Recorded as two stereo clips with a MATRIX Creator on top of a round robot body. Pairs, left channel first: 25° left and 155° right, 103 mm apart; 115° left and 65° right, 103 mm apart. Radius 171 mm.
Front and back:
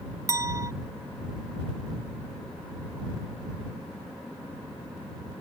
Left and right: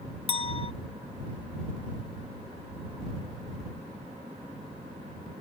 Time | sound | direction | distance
0.3 | a clink | 140° left | ?